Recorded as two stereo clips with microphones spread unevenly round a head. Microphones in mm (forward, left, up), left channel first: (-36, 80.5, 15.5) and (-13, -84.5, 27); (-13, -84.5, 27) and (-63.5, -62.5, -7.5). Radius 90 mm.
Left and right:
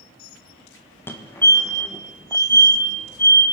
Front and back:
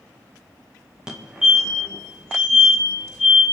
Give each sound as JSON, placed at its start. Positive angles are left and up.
{"t": 1.1, "sound": "a fire alarm", "azimuth_deg": 165, "distance_m": 1.5}